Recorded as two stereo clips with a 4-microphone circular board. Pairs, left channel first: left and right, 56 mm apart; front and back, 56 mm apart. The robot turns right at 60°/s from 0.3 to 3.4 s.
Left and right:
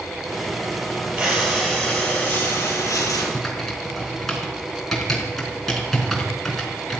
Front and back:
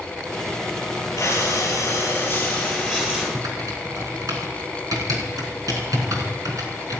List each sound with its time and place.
1.2 s breathing: 15° right, 7.5 m; by 3.2 s 110° left, 7.5 m
3.3 s typing on a keyboard: 170° left, 4.5 m; by 7.0 s 175° left, 4.5 m